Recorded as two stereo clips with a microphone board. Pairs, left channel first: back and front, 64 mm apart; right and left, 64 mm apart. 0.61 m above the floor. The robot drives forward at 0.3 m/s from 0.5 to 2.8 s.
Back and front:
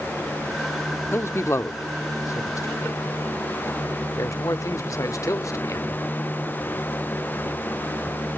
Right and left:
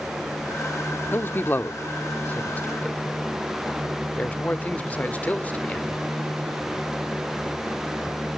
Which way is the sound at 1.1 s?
140° right.